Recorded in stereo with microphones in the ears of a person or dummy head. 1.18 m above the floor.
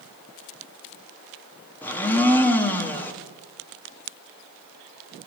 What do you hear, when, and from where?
1.8 s a blender: 10° left (ahead or behind), 0.7 m